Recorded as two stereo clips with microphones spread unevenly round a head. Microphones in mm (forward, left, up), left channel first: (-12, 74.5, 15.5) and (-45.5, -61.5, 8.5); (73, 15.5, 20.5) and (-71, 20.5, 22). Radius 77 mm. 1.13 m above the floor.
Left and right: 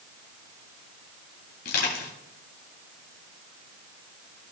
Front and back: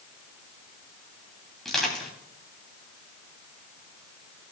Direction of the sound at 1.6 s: 85° left.